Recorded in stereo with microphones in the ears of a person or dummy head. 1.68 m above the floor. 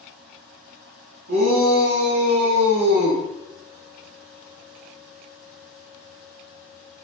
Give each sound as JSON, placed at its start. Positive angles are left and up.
{"t": 1.3, "sound": "a shout", "side_deg": -60, "distance_m": 1.4}